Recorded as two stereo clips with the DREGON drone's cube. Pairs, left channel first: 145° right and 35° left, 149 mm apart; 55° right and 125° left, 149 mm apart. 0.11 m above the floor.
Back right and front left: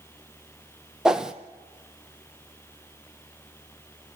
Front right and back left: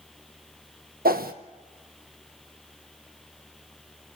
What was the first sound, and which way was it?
A whoosh, 120° left.